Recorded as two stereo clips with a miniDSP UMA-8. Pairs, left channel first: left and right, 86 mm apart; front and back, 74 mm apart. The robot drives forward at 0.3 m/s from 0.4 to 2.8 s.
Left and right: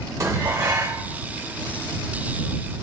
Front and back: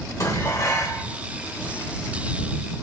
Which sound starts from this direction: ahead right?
Dishes clattering, at 0.2 s.